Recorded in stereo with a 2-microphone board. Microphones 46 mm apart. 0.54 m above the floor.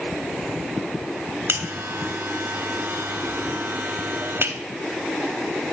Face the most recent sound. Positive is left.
turn(degrees=-55)  # may be behind; listen again after turning